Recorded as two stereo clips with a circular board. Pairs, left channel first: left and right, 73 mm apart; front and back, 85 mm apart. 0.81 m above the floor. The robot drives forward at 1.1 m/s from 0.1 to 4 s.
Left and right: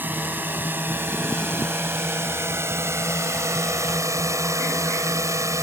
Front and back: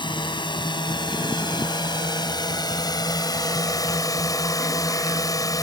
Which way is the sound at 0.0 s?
25° right.